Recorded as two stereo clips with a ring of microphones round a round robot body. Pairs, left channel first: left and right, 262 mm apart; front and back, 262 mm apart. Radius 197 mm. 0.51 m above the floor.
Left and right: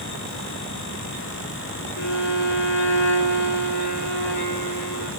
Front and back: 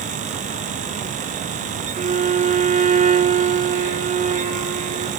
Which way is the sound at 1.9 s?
120° left.